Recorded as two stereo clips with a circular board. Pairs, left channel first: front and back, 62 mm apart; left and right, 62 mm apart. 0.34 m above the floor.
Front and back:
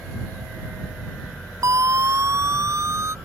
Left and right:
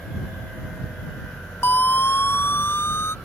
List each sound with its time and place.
1.6 s a siren: 145° left; by 3.1 s 140° left